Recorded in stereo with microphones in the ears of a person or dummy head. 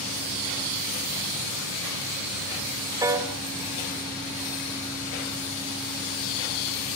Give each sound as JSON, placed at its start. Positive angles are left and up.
{"t": 3.0, "sound": "a piano", "side_deg": -15, "distance_m": 2.5}